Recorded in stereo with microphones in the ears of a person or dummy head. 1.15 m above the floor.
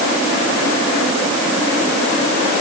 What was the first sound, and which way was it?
Only background noise.